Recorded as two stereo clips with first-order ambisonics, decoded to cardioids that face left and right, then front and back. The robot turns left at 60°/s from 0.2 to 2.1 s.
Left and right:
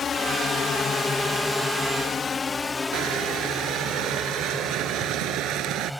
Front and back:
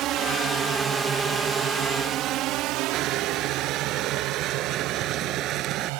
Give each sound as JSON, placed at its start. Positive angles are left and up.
{"t": 0.0, "sound": "a drone", "azimuth_deg": 150}
{"t": 2.9, "sound": "crushing", "azimuth_deg": -125}